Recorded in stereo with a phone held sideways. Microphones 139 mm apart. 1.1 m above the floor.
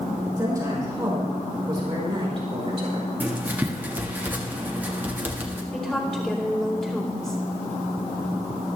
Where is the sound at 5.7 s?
5° left (ahead or behind), 3 m.